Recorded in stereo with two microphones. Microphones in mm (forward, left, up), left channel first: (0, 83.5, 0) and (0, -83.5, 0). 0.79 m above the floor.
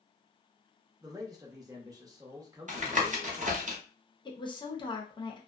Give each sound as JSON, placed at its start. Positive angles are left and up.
{"t": 1.0, "sound": "a man speaking", "side_deg": -20, "distance_m": 0.7}
{"t": 2.7, "sound": "tapping", "side_deg": -50, "distance_m": 0.7}
{"t": 4.2, "sound": "a woman speaking", "side_deg": 25, "distance_m": 0.7}